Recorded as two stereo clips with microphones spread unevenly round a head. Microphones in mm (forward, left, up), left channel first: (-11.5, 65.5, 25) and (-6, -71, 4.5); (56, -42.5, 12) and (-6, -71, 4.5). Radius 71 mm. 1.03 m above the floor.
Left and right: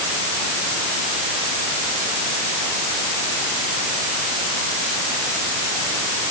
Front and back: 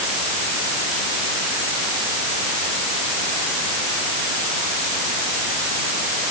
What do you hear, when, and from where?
Only background noise.